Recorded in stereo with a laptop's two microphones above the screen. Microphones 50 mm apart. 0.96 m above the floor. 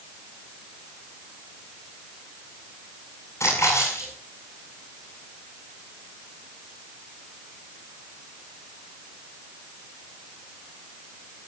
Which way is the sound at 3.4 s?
80° left.